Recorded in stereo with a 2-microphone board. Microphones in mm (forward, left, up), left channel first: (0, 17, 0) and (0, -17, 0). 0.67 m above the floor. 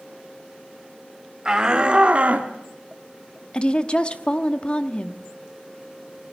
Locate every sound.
1.4 s a shout: 25° right (ahead or behind), 1.9 m; by 2.5 s 50° right (ahead or behind), 1.3 m
3.5 s a woman speaking: 35° left (ahead or behind), 1.0 m